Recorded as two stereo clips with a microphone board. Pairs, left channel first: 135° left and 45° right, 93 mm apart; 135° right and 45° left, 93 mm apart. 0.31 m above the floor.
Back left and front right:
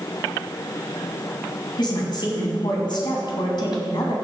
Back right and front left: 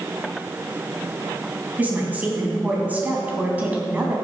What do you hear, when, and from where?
1.8 s a woman speaking: 115° left, 2.5 m